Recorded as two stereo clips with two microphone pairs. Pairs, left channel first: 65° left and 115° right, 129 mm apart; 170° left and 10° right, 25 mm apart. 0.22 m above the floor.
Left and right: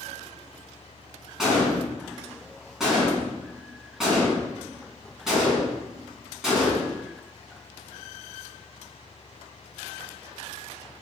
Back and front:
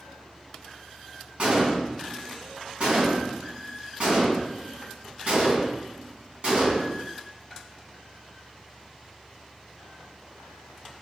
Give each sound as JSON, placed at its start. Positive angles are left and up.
{"t": 1.4, "sound": "a gunshot", "azimuth_deg": -30, "distance_m": 1.3}